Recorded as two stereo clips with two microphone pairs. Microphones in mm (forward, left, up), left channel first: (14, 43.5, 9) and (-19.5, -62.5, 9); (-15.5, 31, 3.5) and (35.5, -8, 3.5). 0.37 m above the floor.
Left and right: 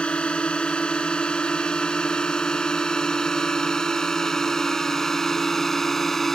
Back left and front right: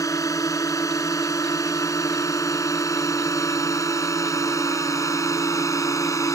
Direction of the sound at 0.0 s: 150° left.